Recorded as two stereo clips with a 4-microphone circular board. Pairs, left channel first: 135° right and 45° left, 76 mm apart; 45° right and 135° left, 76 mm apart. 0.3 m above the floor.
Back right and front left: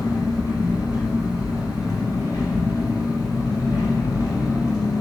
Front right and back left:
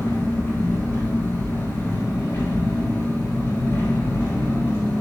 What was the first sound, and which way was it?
An engine running, 100° right.